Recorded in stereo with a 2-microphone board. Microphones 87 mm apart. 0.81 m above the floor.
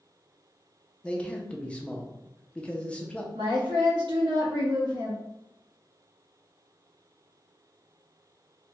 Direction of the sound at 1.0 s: 15° left (ahead or behind).